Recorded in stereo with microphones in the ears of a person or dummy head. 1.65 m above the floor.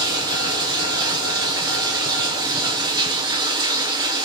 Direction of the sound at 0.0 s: 25° right (ahead or behind).